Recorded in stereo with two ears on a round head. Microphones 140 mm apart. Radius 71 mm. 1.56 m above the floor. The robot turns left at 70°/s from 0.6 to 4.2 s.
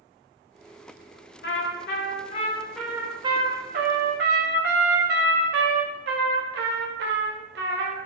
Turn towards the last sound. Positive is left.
turn(degrees=-95)